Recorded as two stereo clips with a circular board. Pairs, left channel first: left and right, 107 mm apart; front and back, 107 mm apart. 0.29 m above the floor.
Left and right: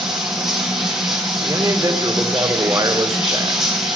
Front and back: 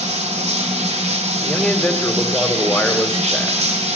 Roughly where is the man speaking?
Right.